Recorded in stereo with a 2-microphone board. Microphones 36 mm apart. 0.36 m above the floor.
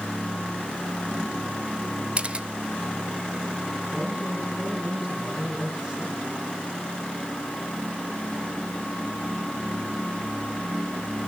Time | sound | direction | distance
2.2 | a camera shutter | 30° right (ahead or behind) | 0.5 m
3.9 | a man speaking | 30° right (ahead or behind) | 8 m